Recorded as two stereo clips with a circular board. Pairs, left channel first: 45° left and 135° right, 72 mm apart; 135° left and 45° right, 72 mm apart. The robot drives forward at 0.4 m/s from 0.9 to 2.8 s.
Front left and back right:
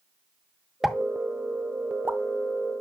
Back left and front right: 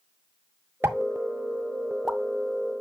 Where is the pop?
50° right, 0.7 m; by 2.2 s 135° right, 0.7 m.